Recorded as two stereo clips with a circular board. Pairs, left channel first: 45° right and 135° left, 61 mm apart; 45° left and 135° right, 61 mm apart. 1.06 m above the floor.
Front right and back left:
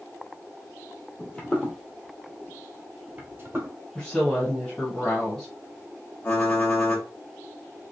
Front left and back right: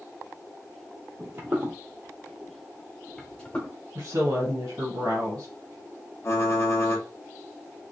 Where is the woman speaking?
125° right, 1.2 m.